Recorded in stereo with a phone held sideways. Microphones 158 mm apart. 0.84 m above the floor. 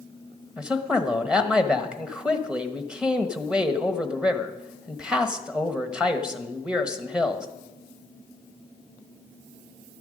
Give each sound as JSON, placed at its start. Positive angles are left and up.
{"t": 0.6, "sound": "a man speaking", "side_deg": -5, "distance_m": 1.0}